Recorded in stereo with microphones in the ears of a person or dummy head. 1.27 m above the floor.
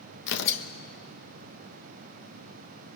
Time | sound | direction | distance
0.3 | tearing paper | 65° left (ahead or behind) | 1.0 m